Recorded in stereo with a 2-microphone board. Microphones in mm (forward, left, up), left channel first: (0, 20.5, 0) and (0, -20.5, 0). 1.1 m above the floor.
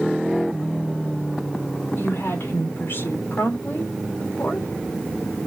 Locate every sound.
2.0 s a woman speaking: 60° left (ahead or behind), 4 m